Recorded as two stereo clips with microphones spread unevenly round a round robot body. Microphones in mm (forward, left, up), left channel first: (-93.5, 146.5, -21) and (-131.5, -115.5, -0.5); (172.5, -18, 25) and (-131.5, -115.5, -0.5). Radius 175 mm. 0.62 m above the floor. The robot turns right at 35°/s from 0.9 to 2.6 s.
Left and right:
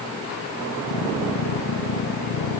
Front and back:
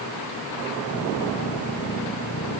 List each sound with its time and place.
Only background noise.